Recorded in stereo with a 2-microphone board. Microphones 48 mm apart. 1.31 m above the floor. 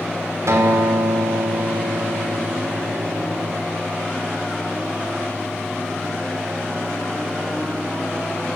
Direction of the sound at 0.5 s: 75° right (ahead or behind).